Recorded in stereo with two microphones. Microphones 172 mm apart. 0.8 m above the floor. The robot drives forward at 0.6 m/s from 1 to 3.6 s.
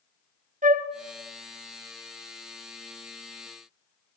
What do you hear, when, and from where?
0.6 s a flute: 50° right (ahead or behind), 0.6 m